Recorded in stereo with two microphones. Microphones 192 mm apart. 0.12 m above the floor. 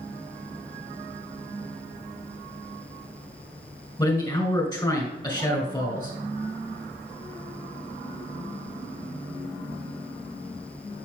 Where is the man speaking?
20° left (ahead or behind), 1.8 m.